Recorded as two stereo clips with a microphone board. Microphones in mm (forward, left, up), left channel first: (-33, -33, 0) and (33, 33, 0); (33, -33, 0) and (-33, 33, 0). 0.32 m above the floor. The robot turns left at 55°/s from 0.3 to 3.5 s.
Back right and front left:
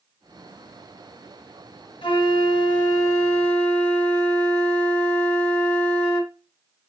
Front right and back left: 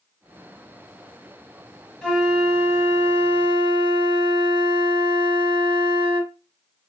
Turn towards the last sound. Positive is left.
turn(degrees=150)